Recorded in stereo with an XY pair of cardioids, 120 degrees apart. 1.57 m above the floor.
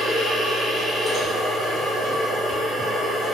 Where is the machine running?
35° left, 0.9 m.